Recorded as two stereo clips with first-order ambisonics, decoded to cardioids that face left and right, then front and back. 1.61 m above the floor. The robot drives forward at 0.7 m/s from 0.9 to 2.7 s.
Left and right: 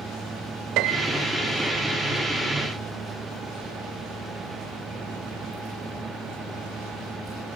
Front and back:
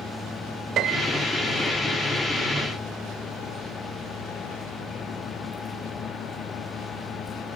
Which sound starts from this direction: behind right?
A piano, at 0.8 s.